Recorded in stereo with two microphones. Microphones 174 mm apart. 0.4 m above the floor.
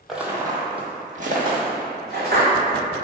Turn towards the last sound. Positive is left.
turn(degrees=-70)  # may be behind; listen again after turning